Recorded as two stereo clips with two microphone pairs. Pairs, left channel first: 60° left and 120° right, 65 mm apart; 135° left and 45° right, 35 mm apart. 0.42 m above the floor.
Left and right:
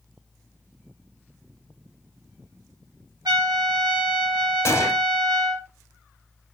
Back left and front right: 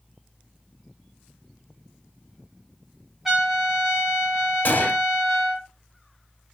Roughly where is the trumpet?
Behind right.